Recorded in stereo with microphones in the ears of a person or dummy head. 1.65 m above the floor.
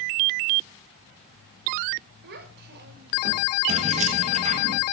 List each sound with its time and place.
2.2 s a child speaking: 60° right (ahead or behind), 4.5 m; by 3.5 s 45° right (ahead or behind), 3.5 m
3.7 s keys jangling: 40° right (ahead or behind), 1.6 m